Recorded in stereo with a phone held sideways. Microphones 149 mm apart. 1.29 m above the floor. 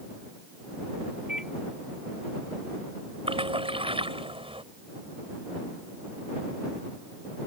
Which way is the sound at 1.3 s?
5° right (ahead or behind).